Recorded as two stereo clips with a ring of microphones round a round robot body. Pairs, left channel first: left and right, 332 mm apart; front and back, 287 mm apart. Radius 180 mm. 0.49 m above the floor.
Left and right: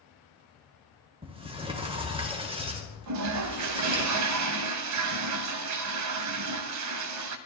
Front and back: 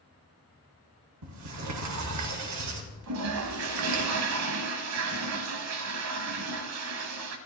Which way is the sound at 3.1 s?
130° right.